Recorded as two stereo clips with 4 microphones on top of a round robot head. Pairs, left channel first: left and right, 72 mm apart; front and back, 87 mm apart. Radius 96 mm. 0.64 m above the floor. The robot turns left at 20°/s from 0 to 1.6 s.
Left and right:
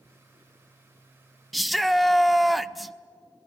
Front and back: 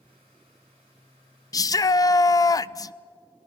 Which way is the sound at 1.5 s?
Straight ahead.